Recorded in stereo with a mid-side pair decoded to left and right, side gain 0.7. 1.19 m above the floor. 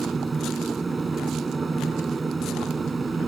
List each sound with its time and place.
0.0 s a machine running: 20° right